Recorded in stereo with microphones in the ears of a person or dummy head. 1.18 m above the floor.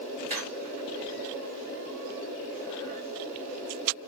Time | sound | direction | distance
0.3 | a squeak | 45° right (ahead or behind) | 2 m